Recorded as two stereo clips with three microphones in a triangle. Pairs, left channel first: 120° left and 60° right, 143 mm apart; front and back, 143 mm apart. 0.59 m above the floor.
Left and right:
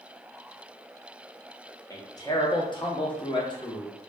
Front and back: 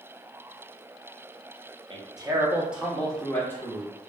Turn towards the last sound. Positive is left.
turn(degrees=65)